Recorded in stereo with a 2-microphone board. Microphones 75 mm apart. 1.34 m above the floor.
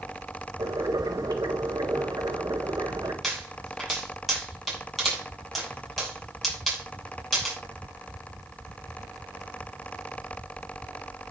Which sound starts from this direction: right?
Boiling, at 0.6 s.